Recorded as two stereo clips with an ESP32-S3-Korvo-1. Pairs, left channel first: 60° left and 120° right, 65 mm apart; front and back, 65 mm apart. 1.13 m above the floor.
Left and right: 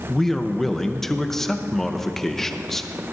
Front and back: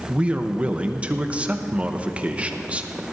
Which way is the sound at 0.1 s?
140° left.